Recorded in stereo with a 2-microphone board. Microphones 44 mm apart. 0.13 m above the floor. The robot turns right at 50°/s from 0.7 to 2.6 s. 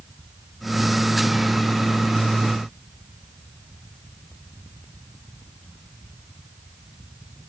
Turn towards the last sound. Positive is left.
No sound to turn to.